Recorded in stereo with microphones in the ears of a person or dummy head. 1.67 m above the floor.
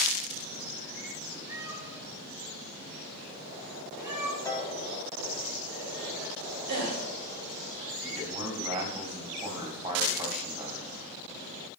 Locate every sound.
1.5 s a cat meowing: 15° right (ahead or behind), 2.5 m
4.5 s a piano: 15° left (ahead or behind), 1.0 m
6.7 s a gasp: 75° right (ahead or behind), 3 m
8.0 s a man speaking: 30° right (ahead or behind), 2.5 m